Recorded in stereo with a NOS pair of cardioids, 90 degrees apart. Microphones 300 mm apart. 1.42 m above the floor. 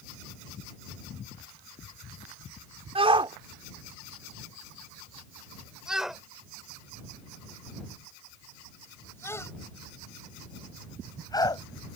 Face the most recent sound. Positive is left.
turn(degrees=15)